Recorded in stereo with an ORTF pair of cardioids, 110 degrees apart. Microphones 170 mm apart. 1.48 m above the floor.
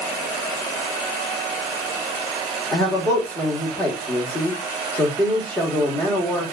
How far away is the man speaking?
About 1.5 m.